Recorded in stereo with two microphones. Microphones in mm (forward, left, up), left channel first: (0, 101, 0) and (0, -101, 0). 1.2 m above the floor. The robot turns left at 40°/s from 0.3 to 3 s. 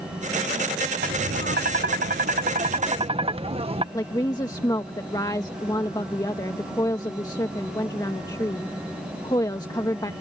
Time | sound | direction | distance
1.0 | tapping | 70° right | ?
3.9 | a woman speaking | 20° left (ahead or behind) | ?